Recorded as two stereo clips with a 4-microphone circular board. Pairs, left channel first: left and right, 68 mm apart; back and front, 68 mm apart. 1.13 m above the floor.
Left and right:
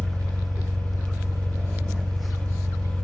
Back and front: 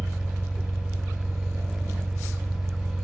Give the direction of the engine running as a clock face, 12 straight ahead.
3 o'clock.